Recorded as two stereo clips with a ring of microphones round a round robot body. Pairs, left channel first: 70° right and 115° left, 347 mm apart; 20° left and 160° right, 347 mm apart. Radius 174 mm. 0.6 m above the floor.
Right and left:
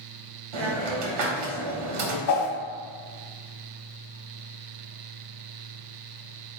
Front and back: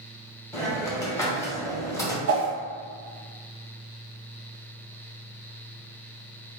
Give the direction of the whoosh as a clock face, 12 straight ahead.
4 o'clock.